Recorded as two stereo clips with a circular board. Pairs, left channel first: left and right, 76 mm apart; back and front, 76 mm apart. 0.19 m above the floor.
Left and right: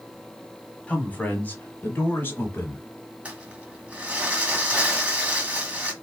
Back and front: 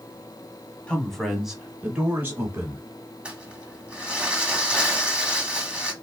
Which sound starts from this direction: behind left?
A man speaking, at 0.9 s.